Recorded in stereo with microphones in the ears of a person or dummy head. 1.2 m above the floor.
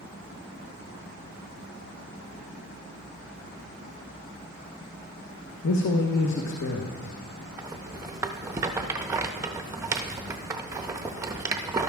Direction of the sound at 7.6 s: 15° right (ahead or behind).